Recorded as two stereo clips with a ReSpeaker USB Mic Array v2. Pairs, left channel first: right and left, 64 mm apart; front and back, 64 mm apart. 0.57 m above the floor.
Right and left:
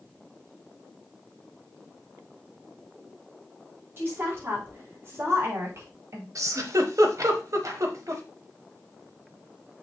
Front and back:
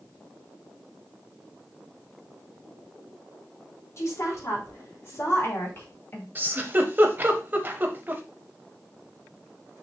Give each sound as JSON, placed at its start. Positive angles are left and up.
{"t": 4.0, "sound": "a woman speaking", "azimuth_deg": 40, "distance_m": 4.5}
{"t": 6.3, "sound": "a giggle", "azimuth_deg": 120, "distance_m": 1.1}